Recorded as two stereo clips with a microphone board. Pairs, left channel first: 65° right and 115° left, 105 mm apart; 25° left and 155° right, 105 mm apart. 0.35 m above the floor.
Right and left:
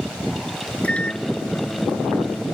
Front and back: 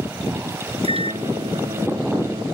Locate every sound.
0.8 s a microwave: 145° right